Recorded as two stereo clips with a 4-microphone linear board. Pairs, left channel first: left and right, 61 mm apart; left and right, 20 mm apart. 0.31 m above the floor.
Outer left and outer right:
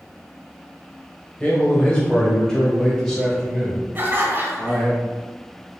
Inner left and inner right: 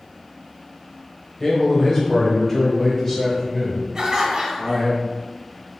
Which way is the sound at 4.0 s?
35° right (ahead or behind).